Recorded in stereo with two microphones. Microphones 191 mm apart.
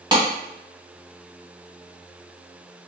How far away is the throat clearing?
I don't hear throat clearing.